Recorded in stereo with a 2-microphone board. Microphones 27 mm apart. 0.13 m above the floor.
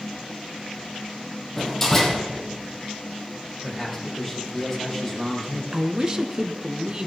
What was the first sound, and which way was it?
A door slam, 20° left (ahead or behind).